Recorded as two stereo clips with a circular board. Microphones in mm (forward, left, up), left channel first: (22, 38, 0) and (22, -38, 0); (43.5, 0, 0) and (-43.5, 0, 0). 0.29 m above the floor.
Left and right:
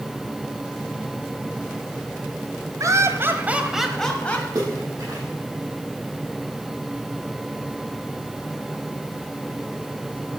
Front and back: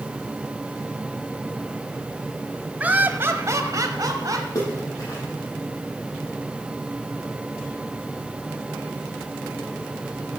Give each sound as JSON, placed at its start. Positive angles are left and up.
{"t": 2.8, "sound": "laughter", "azimuth_deg": -115, "distance_m": 1.6}
{"t": 4.5, "sound": "a splash", "azimuth_deg": -50, "distance_m": 6.5}